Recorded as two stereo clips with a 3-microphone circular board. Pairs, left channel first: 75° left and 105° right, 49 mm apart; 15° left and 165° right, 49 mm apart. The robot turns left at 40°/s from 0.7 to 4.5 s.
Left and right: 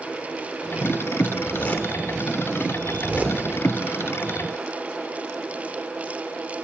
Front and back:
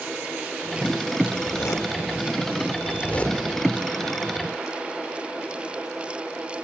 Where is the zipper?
30° left, 1.2 m; by 3.4 s 55° right, 1.2 m.